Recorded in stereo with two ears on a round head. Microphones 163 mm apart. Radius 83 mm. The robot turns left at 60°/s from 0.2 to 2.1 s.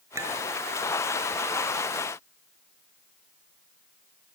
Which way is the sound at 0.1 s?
15° right (ahead or behind).